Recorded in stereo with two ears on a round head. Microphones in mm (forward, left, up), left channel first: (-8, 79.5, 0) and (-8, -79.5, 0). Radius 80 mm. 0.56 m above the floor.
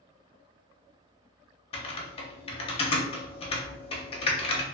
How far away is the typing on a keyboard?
About 0.6 m.